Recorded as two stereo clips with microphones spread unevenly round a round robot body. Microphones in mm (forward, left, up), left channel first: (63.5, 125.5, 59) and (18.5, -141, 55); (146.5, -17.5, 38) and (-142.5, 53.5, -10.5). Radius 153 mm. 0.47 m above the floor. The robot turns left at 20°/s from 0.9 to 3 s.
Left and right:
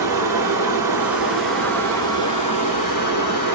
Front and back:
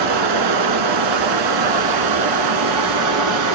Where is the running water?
Straight behind, 0.7 m; by 3.5 s 140° left, 0.7 m.